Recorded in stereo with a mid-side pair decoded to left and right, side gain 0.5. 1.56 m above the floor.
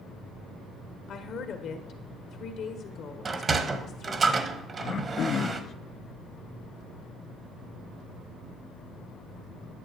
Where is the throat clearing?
50° left, 0.5 m.